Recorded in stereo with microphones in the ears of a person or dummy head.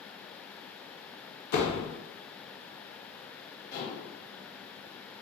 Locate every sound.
1.5 s a door slam: 50° left (ahead or behind), 0.6 m
3.7 s dishes clattering: 50° left (ahead or behind), 1.5 m